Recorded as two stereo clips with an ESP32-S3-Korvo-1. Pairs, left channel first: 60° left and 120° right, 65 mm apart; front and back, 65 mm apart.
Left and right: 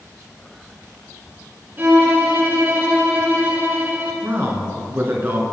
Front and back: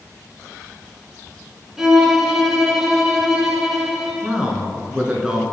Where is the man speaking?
110° right, 1.3 m.